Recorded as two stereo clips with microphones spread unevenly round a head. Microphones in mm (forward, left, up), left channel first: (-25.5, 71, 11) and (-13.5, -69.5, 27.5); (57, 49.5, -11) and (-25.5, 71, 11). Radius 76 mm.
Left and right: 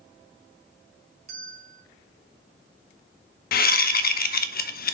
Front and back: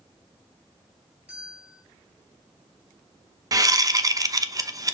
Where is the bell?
120° right, 2.5 m.